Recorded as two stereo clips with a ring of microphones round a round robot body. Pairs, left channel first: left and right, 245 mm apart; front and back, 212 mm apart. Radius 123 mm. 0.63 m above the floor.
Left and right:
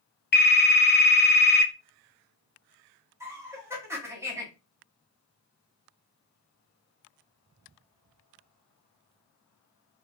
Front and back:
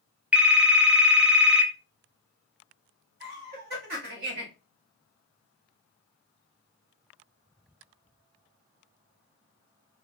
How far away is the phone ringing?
About 0.6 m.